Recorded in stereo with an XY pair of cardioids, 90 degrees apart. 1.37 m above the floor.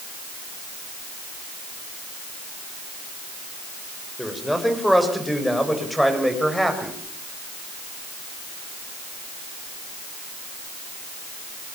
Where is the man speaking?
5° left, 6.5 m; by 7.0 s straight ahead, 8 m.